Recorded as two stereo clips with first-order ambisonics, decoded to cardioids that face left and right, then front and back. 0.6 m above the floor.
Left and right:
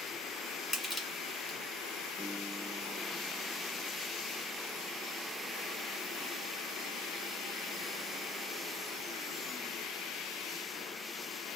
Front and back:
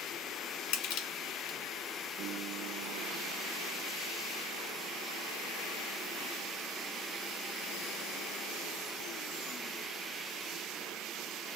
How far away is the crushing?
About 1.2 m.